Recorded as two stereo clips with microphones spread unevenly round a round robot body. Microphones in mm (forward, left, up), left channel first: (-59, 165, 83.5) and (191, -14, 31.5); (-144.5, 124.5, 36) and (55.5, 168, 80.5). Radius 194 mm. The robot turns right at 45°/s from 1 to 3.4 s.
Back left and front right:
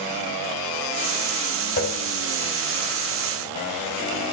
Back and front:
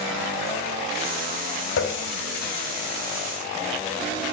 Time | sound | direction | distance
1.8 | a running tap | 150° right | 1.5 m